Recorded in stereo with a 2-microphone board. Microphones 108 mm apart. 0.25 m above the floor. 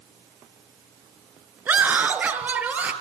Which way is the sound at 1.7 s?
15° right (ahead or behind).